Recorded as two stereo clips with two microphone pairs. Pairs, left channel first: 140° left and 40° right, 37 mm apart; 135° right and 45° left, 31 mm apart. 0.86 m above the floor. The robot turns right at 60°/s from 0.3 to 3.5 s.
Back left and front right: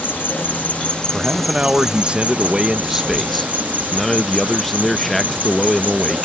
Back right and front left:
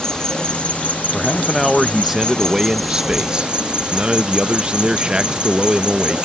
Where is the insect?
160° left; by 6.3 s 5° right.